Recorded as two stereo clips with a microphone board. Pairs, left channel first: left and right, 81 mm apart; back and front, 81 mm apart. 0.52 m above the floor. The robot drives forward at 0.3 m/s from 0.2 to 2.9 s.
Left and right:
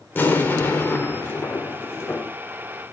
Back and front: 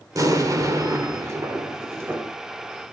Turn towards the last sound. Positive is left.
turn(degrees=55)